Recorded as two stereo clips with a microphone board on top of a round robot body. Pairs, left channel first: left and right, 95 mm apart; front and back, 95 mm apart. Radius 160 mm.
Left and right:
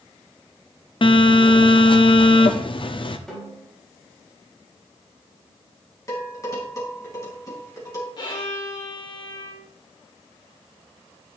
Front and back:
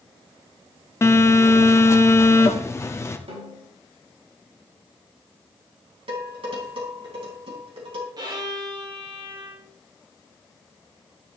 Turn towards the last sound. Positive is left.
turn(degrees=135)